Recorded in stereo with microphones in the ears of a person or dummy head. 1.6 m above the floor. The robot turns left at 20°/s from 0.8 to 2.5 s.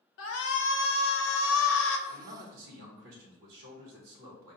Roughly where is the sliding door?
No sliding door in this recording.